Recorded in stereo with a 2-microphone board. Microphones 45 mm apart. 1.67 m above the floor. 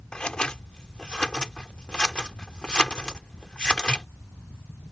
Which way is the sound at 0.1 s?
20° left (ahead or behind).